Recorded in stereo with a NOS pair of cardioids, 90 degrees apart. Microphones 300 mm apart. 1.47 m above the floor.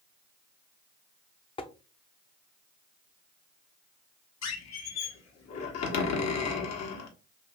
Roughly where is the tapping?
Ahead.